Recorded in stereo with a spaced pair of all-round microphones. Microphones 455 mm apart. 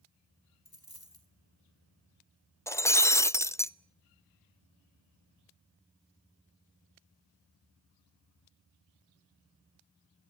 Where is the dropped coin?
50° left (ahead or behind), 5.5 m.